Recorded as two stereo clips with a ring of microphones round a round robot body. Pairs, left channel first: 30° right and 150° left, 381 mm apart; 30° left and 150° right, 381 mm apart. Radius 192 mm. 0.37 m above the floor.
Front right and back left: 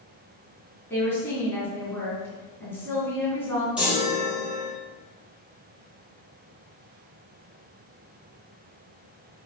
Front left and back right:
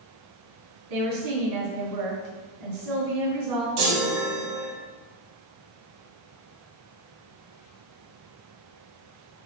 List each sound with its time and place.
0.9 s a woman speaking: 115° right, 3.5 m
3.8 s a chime: 125° right, 4 m